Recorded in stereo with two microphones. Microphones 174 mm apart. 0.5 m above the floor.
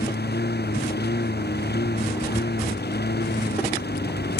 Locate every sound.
0.0 s a lawn mower: 70° left (ahead or behind)